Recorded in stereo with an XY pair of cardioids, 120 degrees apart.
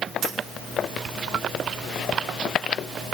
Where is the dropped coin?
65° right, 1.6 m.